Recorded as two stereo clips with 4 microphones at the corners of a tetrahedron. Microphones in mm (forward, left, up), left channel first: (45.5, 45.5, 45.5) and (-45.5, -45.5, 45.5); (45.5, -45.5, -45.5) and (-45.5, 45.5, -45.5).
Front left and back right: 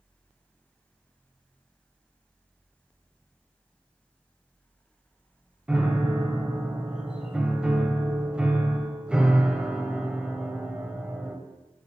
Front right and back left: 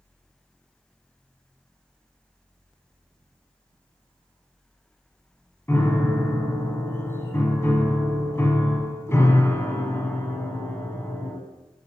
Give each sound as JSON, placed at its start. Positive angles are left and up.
{"t": 5.7, "sound": "a piano", "azimuth_deg": -65, "distance_m": 0.9}